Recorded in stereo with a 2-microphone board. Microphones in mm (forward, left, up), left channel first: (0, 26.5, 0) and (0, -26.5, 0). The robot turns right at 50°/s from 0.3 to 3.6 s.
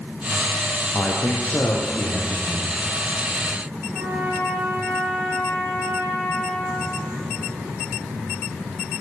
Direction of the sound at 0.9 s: 30° left.